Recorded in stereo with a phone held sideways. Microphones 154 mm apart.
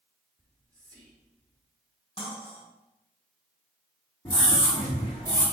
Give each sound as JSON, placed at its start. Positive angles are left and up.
{"t": 0.4, "sound": "whispering", "side_deg": 5, "distance_m": 1.3}
{"t": 2.2, "sound": "cutlery clinking", "side_deg": 40, "distance_m": 3.5}
{"t": 4.2, "sound": "a scream", "side_deg": 30, "distance_m": 2.0}